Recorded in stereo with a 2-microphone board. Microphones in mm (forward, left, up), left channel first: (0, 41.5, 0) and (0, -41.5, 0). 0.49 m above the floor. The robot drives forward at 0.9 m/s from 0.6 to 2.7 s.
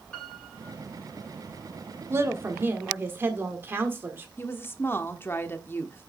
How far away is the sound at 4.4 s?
About 1.0 m.